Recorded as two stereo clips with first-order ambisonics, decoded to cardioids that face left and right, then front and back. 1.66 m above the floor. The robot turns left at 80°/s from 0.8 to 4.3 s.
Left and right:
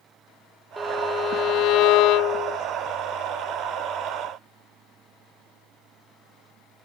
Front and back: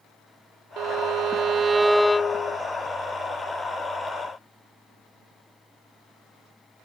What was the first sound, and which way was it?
A violin, straight behind.